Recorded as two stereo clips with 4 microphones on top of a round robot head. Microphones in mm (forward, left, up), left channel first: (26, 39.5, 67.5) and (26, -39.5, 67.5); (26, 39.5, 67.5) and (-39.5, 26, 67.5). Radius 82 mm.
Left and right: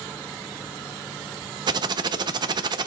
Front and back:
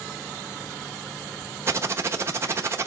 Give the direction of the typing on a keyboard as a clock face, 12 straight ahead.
4 o'clock.